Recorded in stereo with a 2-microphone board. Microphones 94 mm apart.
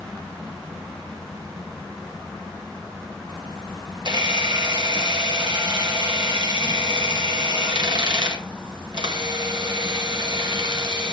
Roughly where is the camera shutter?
Right.